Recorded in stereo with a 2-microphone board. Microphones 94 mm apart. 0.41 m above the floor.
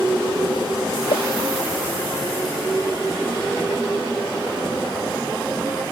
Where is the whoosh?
85° left.